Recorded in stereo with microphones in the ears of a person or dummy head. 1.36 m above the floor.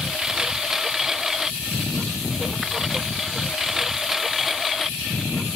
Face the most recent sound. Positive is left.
turn(degrees=0)  # may be behind; listen again after turning